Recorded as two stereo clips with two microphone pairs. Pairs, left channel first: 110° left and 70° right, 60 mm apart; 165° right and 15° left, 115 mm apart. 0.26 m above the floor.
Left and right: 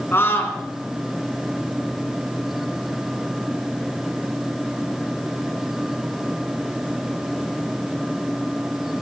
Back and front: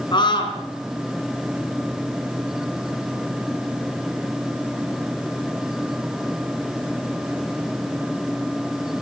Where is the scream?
155° left, 3 m.